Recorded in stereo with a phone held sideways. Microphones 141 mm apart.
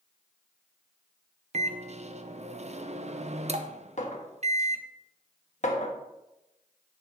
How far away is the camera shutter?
No camera shutter in this recording.